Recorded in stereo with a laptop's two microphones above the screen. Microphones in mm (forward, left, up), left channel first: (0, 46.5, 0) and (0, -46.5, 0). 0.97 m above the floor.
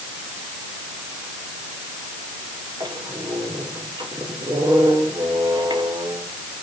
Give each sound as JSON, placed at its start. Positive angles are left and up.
{"t": 2.8, "sound": "a squeak", "side_deg": -50, "distance_m": 2.5}